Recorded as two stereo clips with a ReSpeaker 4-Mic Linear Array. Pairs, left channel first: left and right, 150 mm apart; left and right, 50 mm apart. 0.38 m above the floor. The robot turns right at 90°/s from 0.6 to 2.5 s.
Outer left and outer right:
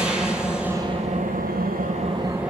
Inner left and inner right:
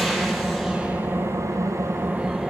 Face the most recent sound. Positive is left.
turn(degrees=-5)